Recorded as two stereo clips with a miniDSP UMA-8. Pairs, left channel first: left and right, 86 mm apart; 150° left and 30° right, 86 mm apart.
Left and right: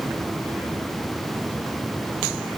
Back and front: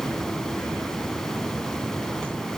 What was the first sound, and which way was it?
Only background noise.